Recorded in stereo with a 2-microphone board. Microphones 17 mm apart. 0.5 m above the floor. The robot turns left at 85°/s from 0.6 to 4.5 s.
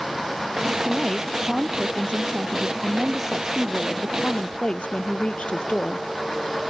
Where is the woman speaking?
45° left; by 6.1 s 95° left.